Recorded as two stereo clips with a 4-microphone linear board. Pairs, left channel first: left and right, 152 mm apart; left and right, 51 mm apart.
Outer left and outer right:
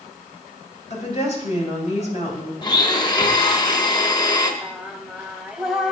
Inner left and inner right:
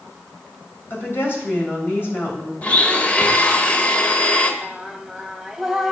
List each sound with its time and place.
0.9 s a woman speaking: 50° left (ahead or behind), 2.5 m
2.6 s a blender: 30° left (ahead or behind), 1.0 m
4.6 s singing: 5° right (ahead or behind), 0.7 m